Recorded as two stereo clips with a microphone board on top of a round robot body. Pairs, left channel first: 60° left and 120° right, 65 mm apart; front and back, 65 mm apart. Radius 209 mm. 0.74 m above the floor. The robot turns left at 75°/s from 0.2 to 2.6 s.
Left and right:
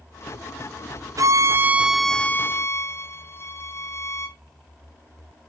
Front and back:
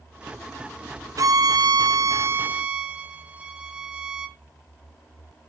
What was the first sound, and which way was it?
A violin, 145° right.